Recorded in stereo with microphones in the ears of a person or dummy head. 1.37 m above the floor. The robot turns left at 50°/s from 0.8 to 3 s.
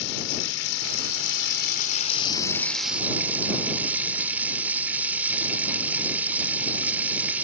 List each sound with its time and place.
0.0 s running water: 100° left; by 7.4 s 10° right